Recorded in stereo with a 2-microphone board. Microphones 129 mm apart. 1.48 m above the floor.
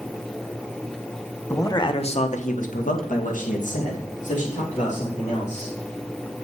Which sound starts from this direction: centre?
A man speaking, at 1.5 s.